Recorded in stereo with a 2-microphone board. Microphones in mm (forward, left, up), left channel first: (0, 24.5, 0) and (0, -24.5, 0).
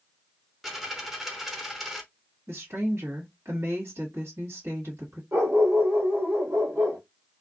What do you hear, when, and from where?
0.6 s a dropped coin: 5° right (ahead or behind), 0.6 m
2.5 s a woman speaking: 60° right (ahead or behind), 1.5 m
5.3 s a dog barking: 75° right (ahead or behind), 1.4 m